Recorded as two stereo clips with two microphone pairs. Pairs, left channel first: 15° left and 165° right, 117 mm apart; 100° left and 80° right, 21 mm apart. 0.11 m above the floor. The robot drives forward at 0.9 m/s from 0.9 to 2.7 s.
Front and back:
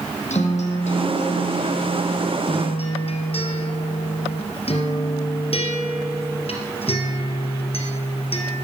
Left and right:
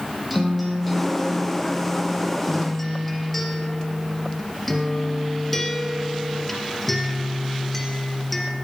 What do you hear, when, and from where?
0.3 s a guitar: 10° left, 4 m; by 8.6 s 20° left, 2.5 m